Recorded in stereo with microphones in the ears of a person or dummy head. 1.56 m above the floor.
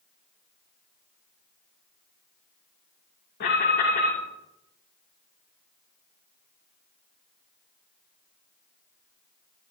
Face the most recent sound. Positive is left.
turn(degrees=60)  # may be behind; listen again after turning